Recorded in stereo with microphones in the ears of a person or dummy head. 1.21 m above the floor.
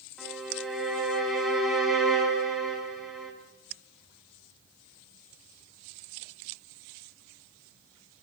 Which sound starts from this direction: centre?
A violin, at 0.2 s.